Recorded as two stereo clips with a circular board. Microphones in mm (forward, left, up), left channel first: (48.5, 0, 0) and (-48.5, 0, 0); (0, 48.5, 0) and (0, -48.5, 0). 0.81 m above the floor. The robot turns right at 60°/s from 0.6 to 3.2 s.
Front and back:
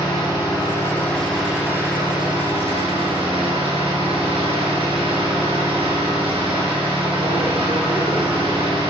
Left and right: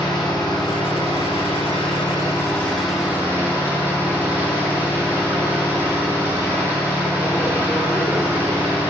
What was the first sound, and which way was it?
An engine running, 45° left.